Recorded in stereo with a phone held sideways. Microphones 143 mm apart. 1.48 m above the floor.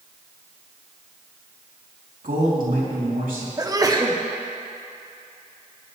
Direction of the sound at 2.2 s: 85° right.